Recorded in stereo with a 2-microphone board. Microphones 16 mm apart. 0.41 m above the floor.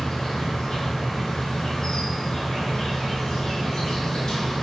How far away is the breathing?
No breathing in this recording.